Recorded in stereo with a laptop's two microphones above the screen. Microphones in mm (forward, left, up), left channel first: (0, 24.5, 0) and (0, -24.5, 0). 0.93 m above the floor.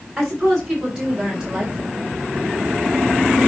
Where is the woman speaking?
10° right (ahead or behind), 4 m; by 2.1 s 15° right (ahead or behind), 3 m.